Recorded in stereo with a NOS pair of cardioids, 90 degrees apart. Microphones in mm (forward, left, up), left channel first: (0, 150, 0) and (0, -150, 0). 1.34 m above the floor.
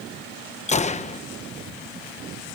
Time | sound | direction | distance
0.7 | a gunshot | 20° left | ?